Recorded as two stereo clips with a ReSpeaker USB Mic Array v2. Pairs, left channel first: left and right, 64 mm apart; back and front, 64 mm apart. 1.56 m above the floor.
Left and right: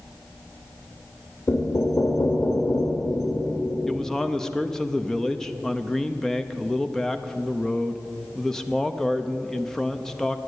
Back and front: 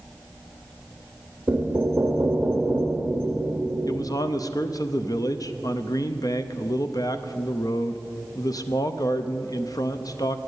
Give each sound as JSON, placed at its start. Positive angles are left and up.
{"t": 1.5, "sound": "knocking", "azimuth_deg": 60, "distance_m": 1.6}
{"t": 3.9, "sound": "a man speaking", "azimuth_deg": 175, "distance_m": 0.6}